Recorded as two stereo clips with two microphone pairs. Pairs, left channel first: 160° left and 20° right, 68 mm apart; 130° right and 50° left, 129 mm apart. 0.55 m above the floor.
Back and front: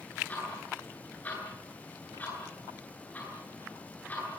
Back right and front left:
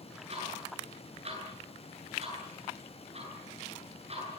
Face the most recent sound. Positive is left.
turn(degrees=90)